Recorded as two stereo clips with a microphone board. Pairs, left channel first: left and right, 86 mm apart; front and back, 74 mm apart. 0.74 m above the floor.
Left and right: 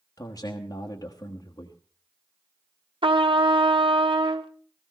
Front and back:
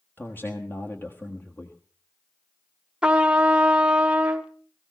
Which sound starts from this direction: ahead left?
A man speaking, at 0.2 s.